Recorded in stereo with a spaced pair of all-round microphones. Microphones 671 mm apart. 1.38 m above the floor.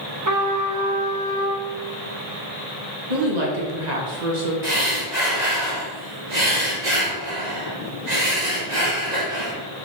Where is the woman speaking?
80° right, 1.7 m.